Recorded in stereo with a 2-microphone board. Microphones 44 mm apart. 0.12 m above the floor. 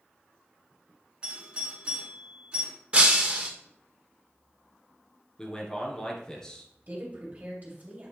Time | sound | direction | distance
1.2 | a doorbell | 20° right (ahead or behind) | 2 m
2.9 | breaking glass | 25° right (ahead or behind) | 1.1 m
5.4 | a man speaking | 15° left (ahead or behind) | 1.5 m
6.9 | a woman speaking | 40° right (ahead or behind) | 2.5 m